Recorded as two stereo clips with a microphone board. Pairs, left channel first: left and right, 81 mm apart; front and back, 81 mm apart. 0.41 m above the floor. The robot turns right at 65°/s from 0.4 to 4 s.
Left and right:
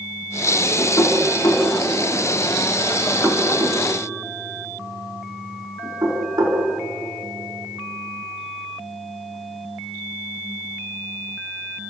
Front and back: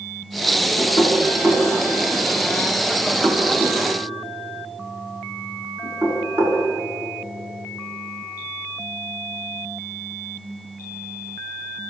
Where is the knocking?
30° left, 4 m; by 6.6 s 125° right, 4 m.